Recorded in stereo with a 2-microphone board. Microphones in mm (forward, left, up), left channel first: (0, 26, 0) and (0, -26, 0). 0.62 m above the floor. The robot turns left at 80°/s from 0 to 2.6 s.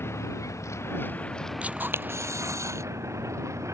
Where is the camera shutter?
25° right; by 2.8 s 105° right.